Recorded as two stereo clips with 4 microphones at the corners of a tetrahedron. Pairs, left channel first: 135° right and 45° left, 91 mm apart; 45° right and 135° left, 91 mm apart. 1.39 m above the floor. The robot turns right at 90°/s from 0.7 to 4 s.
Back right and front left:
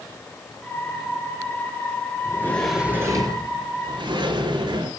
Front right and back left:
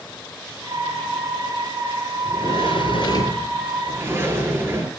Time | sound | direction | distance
2.2 | a sliding door | 85° right | 3.5 m